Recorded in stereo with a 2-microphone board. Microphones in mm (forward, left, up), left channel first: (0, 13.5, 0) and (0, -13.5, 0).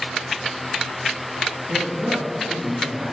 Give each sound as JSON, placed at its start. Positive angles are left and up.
{"t": 1.7, "sound": "a man speaking", "side_deg": -55, "distance_m": 5.0}